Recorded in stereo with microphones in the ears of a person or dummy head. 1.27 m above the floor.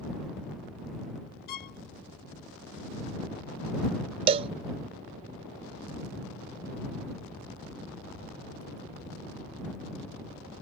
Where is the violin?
55° left (ahead or behind).